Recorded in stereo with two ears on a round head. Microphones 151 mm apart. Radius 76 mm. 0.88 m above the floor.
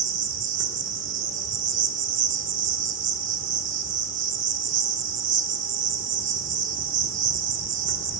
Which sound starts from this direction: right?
An insect, at 0.0 s.